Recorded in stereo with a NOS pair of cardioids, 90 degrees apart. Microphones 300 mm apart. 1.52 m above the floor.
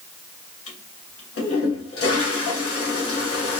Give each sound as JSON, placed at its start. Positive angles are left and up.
{"t": 0.7, "sound": "a toilet flushing", "azimuth_deg": 50, "distance_m": 1.5}